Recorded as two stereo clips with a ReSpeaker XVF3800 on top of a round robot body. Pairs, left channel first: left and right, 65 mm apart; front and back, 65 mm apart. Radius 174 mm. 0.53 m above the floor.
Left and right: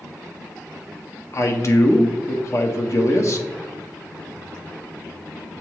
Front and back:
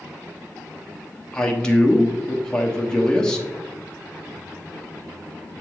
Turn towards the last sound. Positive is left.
turn(degrees=75)